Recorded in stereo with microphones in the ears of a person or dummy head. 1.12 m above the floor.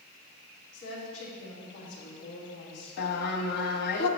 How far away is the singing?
About 0.8 m.